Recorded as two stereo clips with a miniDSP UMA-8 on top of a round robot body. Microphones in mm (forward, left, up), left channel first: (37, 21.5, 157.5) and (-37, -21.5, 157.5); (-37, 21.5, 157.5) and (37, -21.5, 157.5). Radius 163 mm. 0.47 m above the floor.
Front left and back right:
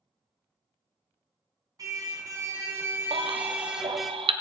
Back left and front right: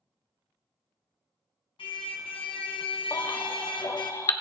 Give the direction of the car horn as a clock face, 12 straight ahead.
7 o'clock.